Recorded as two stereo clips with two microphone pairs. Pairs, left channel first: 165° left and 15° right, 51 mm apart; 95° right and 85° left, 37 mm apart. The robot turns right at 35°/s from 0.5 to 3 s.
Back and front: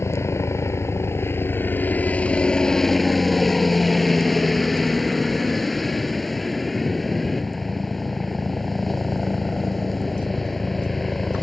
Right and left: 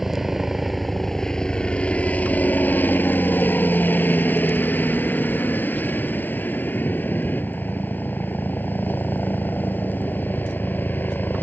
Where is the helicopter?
165° left; by 11.4 s 105° right.